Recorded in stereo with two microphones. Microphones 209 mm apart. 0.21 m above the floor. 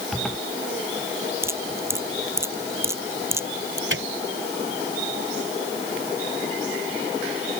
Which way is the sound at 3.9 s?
65° right (ahead or behind).